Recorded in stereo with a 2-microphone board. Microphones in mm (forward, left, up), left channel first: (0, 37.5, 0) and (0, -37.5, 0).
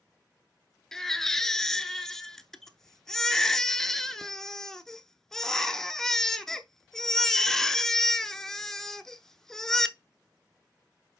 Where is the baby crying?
5° left (ahead or behind), 0.7 m.